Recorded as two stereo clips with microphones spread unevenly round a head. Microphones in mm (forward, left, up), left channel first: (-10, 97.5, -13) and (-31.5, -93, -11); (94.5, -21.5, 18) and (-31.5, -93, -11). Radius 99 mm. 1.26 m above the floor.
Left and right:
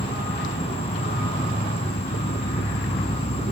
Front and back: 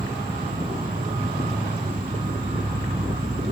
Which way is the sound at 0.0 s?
140° left.